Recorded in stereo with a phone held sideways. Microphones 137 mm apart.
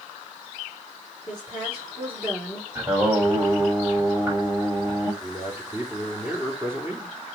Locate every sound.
1.3 s a woman speaking: 15° right (ahead or behind), 4.5 m
2.8 s singing: 15° right (ahead or behind), 6 m
5.2 s a man speaking: 15° right (ahead or behind), 3 m